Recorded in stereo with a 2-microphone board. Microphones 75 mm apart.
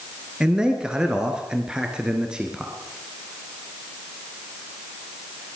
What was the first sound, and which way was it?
A man speaking, 10° right (ahead or behind).